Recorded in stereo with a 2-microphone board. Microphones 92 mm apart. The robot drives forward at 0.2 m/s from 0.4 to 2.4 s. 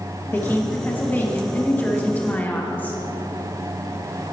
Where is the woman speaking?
20° left (ahead or behind), 0.9 m.